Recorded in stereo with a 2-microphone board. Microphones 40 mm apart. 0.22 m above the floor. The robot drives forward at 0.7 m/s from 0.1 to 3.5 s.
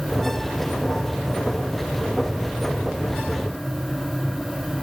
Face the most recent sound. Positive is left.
No sound to turn to.